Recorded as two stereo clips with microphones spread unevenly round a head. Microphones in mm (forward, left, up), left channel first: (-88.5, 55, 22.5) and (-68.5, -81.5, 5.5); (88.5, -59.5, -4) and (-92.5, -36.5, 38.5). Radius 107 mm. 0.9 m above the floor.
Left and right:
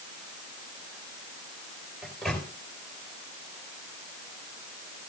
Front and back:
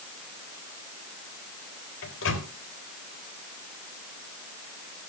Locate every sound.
2.0 s a microwave: 10° left, 3.5 m